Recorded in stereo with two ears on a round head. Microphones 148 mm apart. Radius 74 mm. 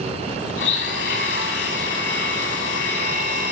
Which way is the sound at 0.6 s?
80° left.